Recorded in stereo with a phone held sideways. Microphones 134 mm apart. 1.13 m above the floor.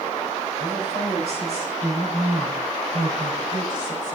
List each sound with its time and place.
0.6 s a woman speaking: 55° right (ahead or behind), 5.5 m; by 4.2 s 35° right (ahead or behind), 5 m